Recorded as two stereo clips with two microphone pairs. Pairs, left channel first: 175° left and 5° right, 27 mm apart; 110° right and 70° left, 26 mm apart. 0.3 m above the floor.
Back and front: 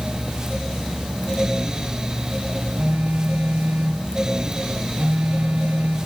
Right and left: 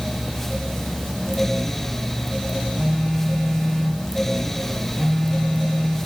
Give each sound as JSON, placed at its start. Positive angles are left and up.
{"t": 2.8, "sound": "a phone buzzing", "azimuth_deg": -30, "distance_m": 7.5}